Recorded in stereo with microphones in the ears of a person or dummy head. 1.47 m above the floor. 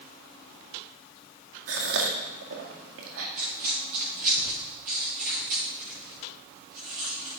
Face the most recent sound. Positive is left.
turn(degrees=-50)  # may be behind; listen again after turning